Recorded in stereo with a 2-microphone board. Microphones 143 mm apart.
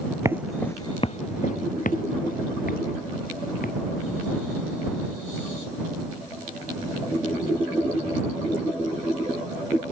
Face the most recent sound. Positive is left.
turn(degrees=85)